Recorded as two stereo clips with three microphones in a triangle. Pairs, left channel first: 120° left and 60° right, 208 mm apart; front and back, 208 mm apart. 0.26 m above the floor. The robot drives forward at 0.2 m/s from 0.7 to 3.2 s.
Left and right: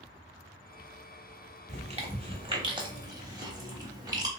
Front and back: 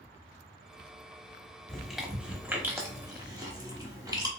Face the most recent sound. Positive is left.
turn(degrees=-120)